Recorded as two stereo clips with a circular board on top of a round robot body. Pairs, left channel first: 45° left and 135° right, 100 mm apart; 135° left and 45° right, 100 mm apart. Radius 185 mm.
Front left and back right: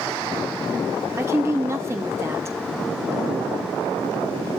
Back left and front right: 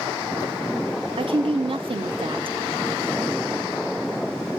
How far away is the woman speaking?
About 1.6 m.